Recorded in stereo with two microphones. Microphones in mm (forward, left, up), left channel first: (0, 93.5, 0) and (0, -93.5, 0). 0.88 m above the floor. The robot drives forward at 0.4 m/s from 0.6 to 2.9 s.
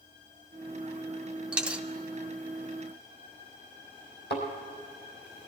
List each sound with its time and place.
1.5 s a dropped coin: 5° right (ahead or behind), 0.7 m
4.3 s a thud: 65° left (ahead or behind), 4 m